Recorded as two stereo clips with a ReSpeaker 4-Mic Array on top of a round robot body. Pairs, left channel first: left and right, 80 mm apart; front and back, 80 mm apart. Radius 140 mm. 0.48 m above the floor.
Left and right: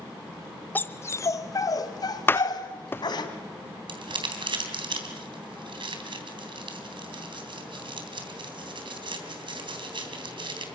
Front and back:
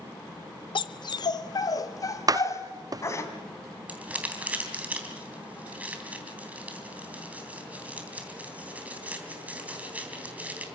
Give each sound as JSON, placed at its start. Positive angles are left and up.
{"t": 0.8, "sound": "a dog barking", "azimuth_deg": 20, "distance_m": 0.7}
{"t": 2.3, "sound": "a door slam", "azimuth_deg": 150, "distance_m": 0.5}
{"t": 3.9, "sound": "crumpling", "azimuth_deg": -105, "distance_m": 3.5}